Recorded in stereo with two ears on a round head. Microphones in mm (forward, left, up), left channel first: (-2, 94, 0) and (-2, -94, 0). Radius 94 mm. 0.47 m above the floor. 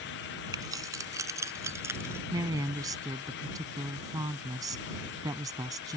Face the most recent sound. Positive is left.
turn(degrees=-15)  # may be behind; listen again after turning